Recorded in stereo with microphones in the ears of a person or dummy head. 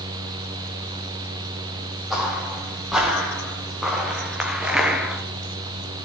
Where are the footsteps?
Centre (ahead or behind), 3.5 m; by 5.2 s 5° right (ahead or behind), 1.1 m.